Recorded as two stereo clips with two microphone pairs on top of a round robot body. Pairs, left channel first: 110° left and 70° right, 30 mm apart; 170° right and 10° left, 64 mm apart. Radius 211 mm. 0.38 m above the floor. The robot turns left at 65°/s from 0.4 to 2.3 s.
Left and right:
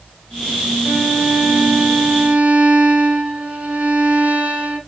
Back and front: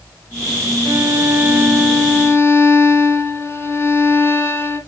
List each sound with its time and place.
0.8 s a violin: 25° right, 3 m; by 4.8 s 120° right, 3 m